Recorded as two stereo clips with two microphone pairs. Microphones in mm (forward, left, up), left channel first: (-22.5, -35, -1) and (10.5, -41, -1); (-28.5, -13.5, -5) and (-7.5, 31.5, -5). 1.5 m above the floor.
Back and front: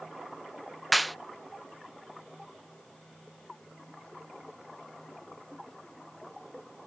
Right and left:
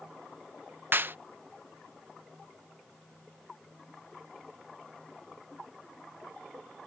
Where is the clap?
85° left.